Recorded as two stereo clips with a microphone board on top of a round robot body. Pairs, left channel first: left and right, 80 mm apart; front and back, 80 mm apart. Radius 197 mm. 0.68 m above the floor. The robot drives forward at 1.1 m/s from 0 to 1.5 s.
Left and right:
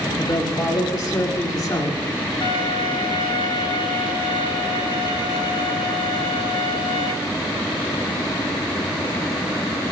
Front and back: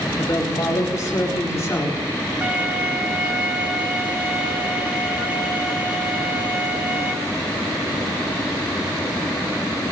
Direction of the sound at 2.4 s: 105° left.